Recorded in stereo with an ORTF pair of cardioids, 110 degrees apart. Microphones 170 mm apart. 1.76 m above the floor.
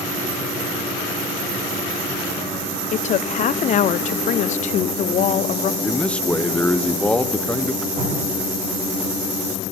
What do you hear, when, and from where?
2.9 s a woman speaking: 45° left, 0.5 m
5.8 s a man speaking: 5° left, 1.0 m
8.0 s dripping: 35° right, 9.5 m